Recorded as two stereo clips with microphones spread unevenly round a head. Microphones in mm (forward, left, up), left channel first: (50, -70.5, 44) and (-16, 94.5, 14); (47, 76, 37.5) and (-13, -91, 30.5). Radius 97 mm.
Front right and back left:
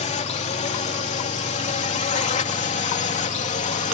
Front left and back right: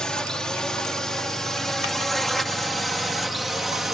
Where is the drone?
15° right; by 3.9 s 20° right.